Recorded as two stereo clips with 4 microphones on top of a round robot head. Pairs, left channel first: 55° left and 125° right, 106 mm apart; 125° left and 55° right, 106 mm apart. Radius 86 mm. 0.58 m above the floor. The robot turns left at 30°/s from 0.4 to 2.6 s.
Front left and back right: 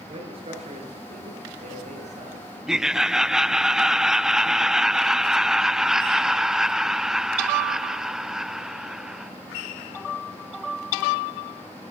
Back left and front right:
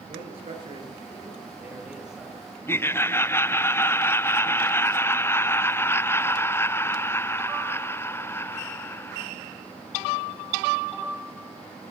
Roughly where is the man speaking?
Right.